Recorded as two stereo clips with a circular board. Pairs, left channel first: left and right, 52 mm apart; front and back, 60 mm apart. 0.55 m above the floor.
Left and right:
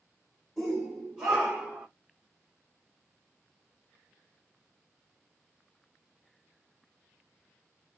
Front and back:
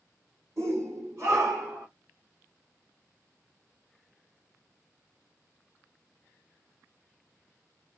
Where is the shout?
Straight behind, 2 m; by 1.9 s 150° right, 1.9 m.